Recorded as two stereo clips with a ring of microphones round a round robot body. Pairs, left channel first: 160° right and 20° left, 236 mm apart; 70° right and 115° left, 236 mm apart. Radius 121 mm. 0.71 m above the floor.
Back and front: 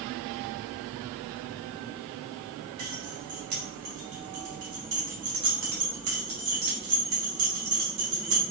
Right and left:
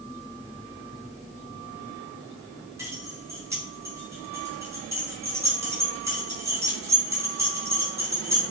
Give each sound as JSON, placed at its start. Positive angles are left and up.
{"t": 2.8, "sound": "keys jangling", "azimuth_deg": 35, "distance_m": 4.0}